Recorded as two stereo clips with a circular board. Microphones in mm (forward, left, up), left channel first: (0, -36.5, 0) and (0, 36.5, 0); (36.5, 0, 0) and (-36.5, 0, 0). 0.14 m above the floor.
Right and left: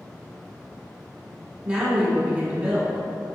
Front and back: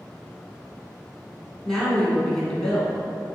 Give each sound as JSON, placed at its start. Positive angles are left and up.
{"t": 1.6, "sound": "a woman speaking", "azimuth_deg": 75, "distance_m": 1.2}